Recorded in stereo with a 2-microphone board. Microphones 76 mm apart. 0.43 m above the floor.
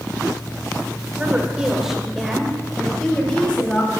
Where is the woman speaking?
20° right (ahead or behind), 1.4 m; by 4.0 s 20° left (ahead or behind), 3 m.